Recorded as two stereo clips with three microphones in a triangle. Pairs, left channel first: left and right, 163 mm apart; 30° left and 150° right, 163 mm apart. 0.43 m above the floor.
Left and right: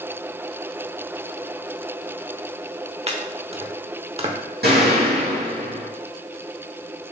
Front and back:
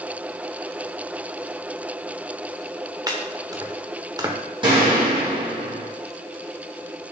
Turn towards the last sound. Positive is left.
turn(degrees=-90)